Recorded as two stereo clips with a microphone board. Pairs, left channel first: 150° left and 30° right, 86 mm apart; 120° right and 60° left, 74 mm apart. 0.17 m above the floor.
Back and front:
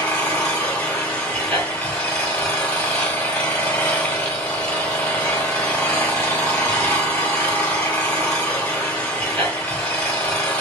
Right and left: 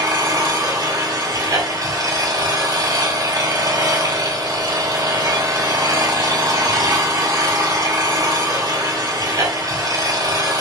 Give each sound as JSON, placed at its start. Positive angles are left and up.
{"t": 0.0, "sound": "an engine running", "azimuth_deg": 80, "distance_m": 1.4}